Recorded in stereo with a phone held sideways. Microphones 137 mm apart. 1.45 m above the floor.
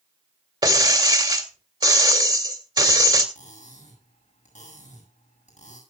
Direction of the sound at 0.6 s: 35° right (ahead or behind).